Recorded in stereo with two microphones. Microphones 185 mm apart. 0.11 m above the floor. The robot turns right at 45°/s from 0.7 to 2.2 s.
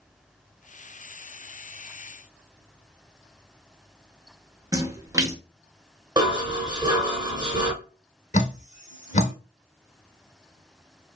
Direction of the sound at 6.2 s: 20° right (ahead or behind).